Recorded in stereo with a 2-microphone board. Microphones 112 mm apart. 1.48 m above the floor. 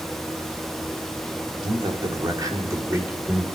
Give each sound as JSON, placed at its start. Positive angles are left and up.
{"t": 1.6, "sound": "a man speaking", "side_deg": -50, "distance_m": 3.5}